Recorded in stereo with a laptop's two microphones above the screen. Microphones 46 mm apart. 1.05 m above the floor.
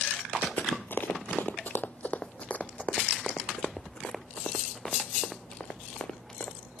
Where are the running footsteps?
55° left (ahead or behind); by 6.6 s 15° left (ahead or behind).